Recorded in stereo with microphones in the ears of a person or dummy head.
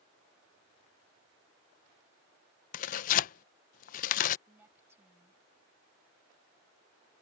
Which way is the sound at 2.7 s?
40° left (ahead or behind).